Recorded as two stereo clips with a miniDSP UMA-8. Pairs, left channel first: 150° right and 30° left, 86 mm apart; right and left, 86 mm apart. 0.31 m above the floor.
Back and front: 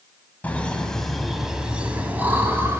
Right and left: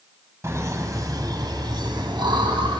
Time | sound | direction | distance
0.4 | laughter | 140° left | 2.5 m